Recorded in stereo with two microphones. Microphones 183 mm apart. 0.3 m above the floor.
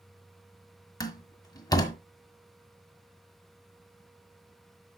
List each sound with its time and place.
1.0 s a door slam: 20° left (ahead or behind), 1.4 m